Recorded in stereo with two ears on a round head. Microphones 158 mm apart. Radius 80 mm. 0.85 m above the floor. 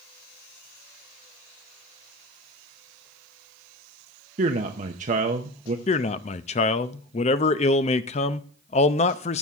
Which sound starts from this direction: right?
A man speaking, at 4.4 s.